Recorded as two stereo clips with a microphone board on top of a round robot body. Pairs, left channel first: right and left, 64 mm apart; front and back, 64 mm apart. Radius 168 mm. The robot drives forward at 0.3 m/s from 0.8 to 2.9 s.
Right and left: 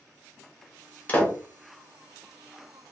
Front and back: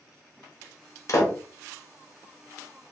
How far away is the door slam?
About 1.0 m.